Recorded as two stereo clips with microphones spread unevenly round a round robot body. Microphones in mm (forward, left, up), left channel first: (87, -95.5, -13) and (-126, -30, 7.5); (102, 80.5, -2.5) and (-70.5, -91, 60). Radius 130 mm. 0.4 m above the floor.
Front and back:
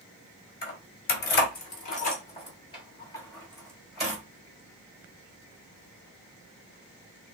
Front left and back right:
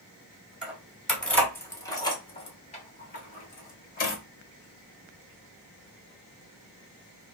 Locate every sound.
0.6 s keys jangling: 40° right, 1.3 m; by 4.2 s 75° left, 1.4 m